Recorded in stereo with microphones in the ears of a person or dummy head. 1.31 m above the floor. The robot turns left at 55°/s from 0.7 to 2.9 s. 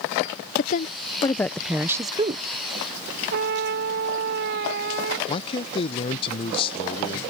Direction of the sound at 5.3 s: 30° left (ahead or behind).